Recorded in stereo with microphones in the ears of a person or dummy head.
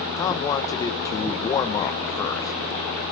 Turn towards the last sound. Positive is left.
turn(degrees=15)  # may be behind; listen again after turning